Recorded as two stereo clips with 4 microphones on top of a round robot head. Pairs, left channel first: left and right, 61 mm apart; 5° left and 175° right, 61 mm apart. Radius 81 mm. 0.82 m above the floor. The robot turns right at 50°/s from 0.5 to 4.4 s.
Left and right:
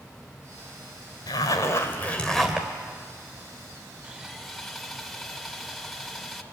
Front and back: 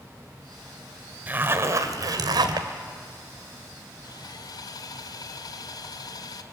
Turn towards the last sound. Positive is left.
turn(degrees=0)